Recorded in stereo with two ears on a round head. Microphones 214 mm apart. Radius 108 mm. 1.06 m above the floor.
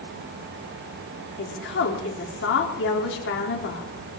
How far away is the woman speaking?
About 3.5 m.